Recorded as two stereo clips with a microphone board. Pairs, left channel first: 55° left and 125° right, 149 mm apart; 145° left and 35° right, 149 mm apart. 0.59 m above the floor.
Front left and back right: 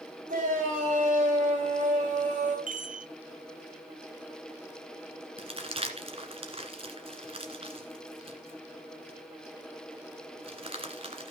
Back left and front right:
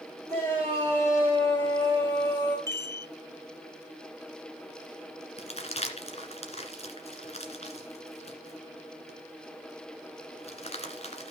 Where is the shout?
145° right, 3.5 m.